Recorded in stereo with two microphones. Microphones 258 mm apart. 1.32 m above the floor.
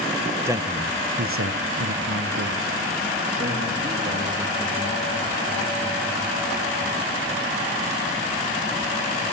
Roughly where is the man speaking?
Centre.